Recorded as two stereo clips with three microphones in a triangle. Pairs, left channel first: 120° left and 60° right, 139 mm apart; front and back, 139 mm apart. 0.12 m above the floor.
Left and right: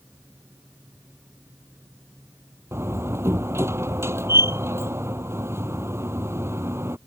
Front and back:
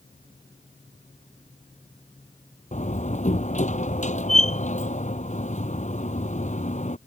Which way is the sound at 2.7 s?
10° left.